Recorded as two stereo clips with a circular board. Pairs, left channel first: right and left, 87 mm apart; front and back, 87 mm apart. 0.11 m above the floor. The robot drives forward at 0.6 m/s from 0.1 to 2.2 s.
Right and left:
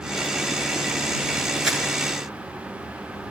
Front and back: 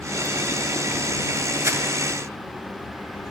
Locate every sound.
1.6 s crumpling: 170° left, 1.3 m